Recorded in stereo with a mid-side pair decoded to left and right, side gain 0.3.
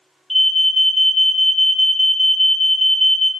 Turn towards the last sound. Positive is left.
turn(degrees=20)